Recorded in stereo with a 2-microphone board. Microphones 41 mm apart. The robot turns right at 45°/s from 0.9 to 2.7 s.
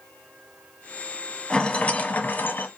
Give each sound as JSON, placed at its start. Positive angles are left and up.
{"t": 1.5, "sound": "a rattle", "azimuth_deg": 30, "distance_m": 0.5}